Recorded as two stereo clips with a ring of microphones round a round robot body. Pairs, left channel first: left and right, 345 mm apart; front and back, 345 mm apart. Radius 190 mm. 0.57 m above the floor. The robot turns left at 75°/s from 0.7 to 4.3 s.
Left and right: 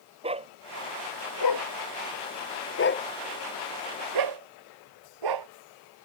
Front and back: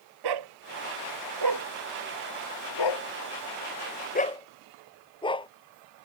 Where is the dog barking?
165° right; by 5.5 s 75° right.